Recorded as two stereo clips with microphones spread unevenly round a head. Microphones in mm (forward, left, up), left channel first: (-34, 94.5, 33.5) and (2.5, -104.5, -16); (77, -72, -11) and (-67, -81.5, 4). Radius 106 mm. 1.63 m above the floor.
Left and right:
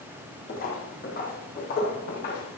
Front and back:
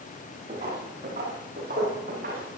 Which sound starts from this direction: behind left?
Footsteps, at 0.5 s.